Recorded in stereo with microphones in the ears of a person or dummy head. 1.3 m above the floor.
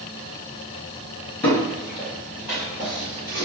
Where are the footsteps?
10° left (ahead or behind), 1.5 m; by 3.4 s 15° right (ahead or behind), 2 m.